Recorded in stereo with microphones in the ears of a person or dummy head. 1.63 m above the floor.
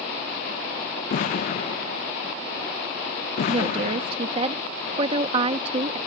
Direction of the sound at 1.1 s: 40° left (ahead or behind).